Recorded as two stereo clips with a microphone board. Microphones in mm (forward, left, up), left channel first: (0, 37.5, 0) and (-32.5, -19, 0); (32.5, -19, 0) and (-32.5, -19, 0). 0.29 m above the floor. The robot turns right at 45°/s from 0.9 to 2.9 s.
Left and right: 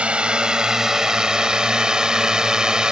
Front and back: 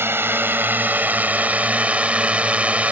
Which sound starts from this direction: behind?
A drone, at 0.0 s.